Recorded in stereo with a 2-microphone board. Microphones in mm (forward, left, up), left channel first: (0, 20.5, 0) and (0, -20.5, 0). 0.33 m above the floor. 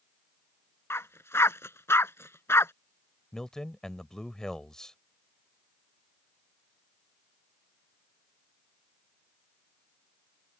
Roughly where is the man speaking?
Centre.